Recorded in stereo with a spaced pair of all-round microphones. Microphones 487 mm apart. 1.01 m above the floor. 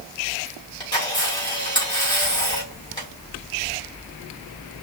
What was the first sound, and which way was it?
A camera shutter, 10° left (ahead or behind).